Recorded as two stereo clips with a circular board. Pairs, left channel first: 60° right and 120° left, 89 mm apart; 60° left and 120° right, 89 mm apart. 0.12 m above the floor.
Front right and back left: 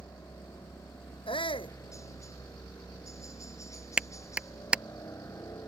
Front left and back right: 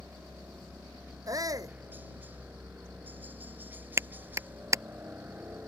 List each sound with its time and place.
0.0 s a helicopter: 65° right
1.3 s a shout: 75° right
4.0 s a clap: 165° right